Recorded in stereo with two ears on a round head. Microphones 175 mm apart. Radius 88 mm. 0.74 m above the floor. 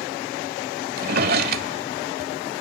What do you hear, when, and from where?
1.0 s a drawer: 50° right (ahead or behind), 1.4 m